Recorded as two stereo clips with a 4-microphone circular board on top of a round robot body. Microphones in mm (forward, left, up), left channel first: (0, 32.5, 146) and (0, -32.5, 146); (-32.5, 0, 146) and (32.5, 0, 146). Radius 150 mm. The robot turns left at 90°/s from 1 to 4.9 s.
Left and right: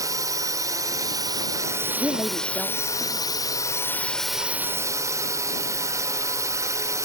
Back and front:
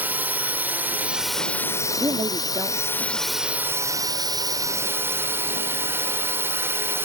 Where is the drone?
65° right; by 7.0 s 55° right.